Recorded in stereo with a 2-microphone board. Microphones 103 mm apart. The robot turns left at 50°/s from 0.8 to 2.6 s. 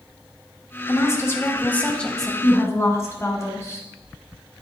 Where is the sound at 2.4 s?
35° left (ahead or behind), 2.5 m; by 3.9 s 30° left (ahead or behind), 2.5 m.